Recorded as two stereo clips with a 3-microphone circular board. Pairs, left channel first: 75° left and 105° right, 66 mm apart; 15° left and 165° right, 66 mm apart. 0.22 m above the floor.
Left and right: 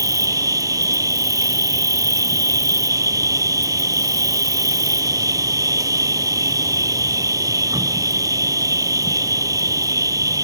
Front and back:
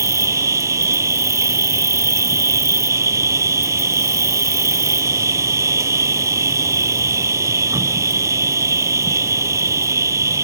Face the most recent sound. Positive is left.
turn(degrees=-130)